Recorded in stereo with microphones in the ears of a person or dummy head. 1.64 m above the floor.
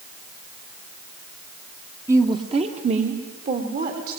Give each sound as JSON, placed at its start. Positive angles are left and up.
{"t": 2.1, "sound": "a woman speaking", "side_deg": -15, "distance_m": 1.2}